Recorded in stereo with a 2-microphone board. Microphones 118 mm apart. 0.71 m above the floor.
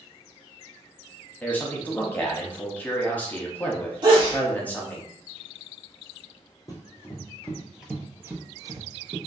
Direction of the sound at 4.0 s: 40° right (ahead or behind).